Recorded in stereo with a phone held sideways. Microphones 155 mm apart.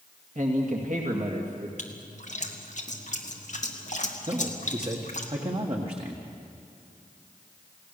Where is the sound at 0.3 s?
55° right (ahead or behind), 2 m.